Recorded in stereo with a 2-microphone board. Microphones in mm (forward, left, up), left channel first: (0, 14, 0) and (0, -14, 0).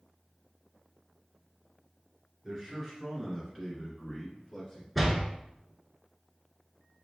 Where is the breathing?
I don't hear breathing.